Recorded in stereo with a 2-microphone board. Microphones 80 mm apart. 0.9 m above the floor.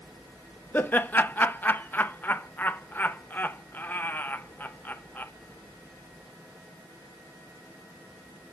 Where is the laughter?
25° left (ahead or behind), 0.6 m.